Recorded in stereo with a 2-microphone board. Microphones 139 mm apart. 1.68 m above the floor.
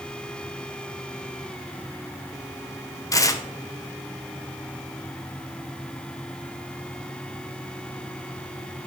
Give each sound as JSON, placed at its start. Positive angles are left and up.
{"t": 3.1, "sound": "tearing paper", "side_deg": 25, "distance_m": 0.6}